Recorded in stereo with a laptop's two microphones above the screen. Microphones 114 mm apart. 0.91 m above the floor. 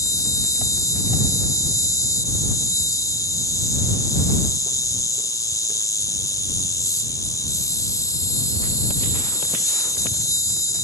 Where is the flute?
No flute in this recording.